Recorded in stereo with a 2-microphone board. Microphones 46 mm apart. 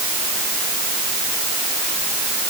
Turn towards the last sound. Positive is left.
No sound to turn to.